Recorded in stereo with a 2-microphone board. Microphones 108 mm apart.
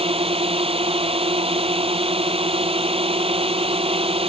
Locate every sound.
0.0 s a drone: 70° right (ahead or behind)